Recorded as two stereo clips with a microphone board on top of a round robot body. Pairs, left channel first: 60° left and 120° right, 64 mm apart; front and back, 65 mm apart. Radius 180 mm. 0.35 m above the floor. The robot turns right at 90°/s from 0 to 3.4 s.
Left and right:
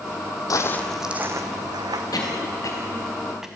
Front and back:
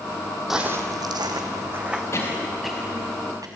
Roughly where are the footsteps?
Left.